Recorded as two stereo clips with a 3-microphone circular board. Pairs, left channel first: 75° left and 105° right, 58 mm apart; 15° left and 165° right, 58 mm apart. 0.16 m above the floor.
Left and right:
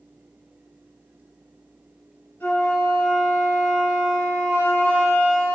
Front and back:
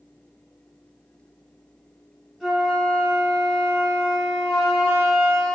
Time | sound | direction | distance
2.4 | a flute | 105° left | 1.8 m